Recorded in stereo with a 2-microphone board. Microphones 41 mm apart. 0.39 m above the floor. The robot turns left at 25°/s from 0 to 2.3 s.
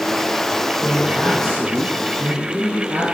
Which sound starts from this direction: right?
A man speaking, at 0.8 s.